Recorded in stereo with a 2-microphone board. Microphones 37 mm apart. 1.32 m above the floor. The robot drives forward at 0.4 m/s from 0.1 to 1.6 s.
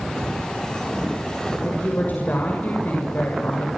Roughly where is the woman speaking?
Left.